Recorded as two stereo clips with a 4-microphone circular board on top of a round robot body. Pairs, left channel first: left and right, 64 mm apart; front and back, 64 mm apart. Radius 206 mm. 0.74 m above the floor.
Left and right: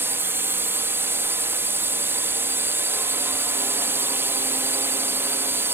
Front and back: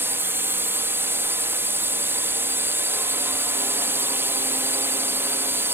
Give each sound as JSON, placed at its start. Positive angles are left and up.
{"t": 0.0, "sound": "a drone", "azimuth_deg": -135}